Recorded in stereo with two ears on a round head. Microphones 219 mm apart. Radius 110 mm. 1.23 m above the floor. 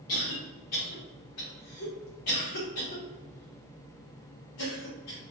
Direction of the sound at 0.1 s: 70° left (ahead or behind).